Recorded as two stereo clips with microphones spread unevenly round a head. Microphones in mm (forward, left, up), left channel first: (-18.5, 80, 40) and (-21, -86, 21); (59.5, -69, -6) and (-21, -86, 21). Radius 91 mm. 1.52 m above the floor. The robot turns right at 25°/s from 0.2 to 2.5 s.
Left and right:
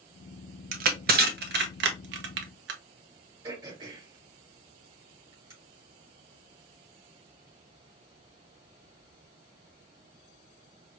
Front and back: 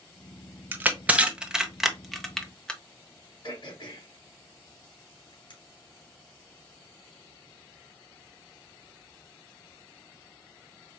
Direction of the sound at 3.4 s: 20° right.